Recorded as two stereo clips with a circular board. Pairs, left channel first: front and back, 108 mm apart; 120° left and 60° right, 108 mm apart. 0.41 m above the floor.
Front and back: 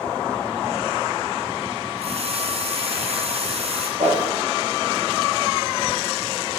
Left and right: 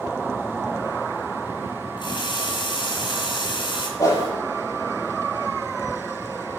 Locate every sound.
2.0 s a running tap: 160° left, 3 m
4.0 s a whoosh: straight behind, 8.5 m